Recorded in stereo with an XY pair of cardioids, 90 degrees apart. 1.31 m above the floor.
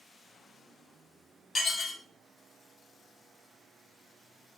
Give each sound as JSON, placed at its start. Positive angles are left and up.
{"t": 1.6, "sound": "dishes clattering", "azimuth_deg": 55, "distance_m": 1.1}